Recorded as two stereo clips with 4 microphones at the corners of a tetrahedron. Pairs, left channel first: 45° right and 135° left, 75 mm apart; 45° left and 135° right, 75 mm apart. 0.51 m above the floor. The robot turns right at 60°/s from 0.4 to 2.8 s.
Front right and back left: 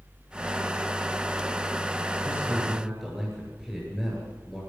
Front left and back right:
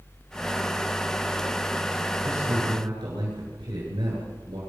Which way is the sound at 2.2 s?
170° right.